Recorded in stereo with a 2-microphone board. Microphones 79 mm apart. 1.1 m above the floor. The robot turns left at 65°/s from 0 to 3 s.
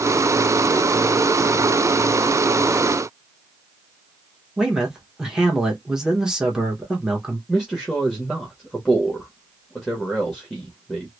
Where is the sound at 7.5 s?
Centre (ahead or behind), 1.3 m.